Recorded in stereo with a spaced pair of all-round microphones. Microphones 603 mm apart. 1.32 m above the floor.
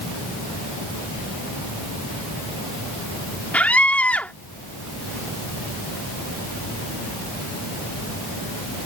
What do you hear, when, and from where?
3.5 s a scream: centre (ahead or behind)